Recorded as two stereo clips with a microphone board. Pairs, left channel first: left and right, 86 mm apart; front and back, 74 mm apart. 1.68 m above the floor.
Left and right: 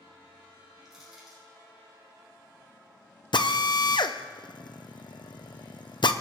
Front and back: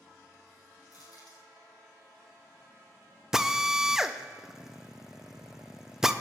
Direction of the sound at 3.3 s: 100° left.